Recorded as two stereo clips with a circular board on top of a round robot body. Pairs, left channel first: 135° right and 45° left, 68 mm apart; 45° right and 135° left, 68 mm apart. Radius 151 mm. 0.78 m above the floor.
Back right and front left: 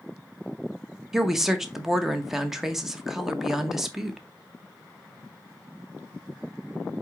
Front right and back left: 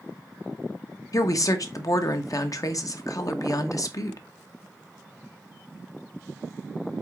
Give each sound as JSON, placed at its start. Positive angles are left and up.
{"t": 1.1, "sound": "a woman speaking", "azimuth_deg": -40, "distance_m": 1.4}